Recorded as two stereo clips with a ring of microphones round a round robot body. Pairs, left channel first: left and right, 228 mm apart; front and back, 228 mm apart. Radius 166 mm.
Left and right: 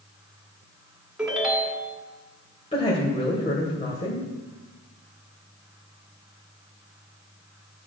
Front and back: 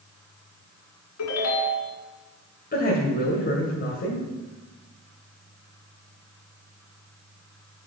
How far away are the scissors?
No scissors in this recording.